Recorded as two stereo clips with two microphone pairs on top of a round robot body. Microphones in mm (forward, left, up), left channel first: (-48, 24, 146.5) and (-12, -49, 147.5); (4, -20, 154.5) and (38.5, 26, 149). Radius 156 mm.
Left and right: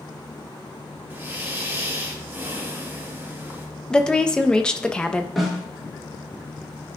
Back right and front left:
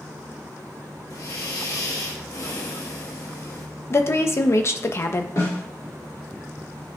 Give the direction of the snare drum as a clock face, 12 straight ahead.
5 o'clock.